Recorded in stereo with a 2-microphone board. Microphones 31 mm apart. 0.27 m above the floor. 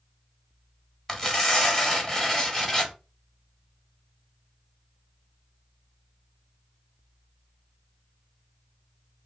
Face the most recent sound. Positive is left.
turn(degrees=20)  # may be behind; listen again after turning